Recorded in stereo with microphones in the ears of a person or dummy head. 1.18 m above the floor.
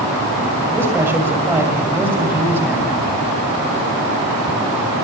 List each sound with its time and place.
0.7 s a man speaking: 10° right (ahead or behind), 6.5 m